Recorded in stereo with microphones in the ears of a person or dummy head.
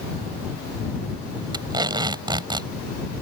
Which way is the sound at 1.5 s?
25° right (ahead or behind).